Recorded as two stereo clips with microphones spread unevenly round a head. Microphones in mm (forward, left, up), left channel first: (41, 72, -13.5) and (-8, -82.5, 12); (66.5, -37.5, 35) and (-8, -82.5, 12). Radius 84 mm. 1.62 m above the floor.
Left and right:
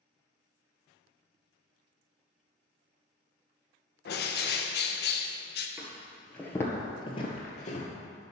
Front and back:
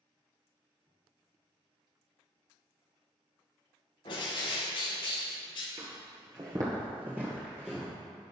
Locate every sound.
4.0 s a bird: 50° left, 1.0 m
5.8 s footsteps: 155° right, 1.8 m; by 7.9 s 105° left, 2 m